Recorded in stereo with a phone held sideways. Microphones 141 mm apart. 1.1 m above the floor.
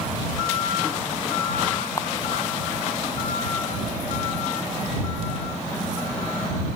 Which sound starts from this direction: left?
A camera shutter, at 2.0 s.